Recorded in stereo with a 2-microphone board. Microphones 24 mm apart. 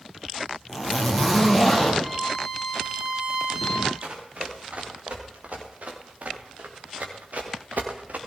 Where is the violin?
25° right (ahead or behind), 8 m.